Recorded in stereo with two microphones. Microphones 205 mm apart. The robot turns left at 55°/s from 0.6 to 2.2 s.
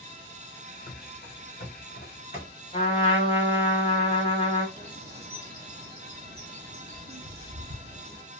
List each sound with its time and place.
0.9 s running footsteps: 45° left (ahead or behind), 0.7 m; by 2.5 s 50° left (ahead or behind), 1.2 m
2.7 s a trumpet: 30° left (ahead or behind), 0.9 m
4.8 s a bird: 50° right (ahead or behind), 1.0 m